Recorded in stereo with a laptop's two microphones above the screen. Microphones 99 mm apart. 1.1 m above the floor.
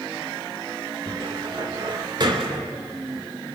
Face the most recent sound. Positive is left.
turn(degrees=-45)  # may be behind; listen again after turning